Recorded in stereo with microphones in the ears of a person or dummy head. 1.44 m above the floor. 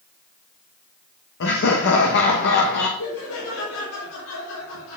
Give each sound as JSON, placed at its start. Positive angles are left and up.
{"t": 1.4, "sound": "laughter", "side_deg": 65, "distance_m": 1.4}
{"t": 3.0, "sound": "laughter", "side_deg": 75, "distance_m": 4.0}